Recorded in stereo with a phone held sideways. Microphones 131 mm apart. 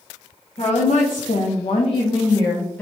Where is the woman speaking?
50° left (ahead or behind), 0.8 m; by 2.8 s 10° left (ahead or behind), 1.0 m.